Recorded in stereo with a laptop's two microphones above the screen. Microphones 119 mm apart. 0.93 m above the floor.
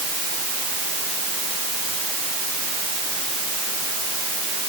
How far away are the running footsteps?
No running footsteps in this recording.